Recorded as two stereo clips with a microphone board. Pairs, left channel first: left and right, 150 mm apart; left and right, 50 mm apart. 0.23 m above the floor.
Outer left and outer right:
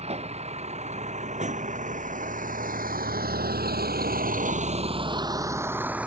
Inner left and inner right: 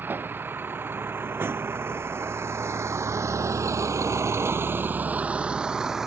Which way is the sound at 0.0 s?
45° right (ahead or behind).